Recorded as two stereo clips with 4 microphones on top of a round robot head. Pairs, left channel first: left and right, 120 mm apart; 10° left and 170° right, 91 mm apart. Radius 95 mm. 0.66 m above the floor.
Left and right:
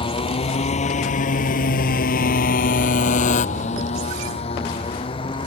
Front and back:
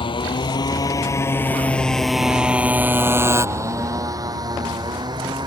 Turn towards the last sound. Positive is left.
turn(degrees=150)